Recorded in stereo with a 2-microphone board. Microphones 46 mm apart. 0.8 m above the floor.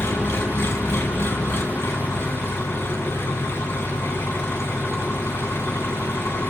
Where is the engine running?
60° left (ahead or behind), 3 m.